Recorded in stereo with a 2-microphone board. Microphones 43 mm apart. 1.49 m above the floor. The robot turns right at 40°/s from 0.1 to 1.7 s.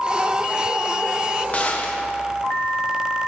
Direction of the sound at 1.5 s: 35° left (ahead or behind).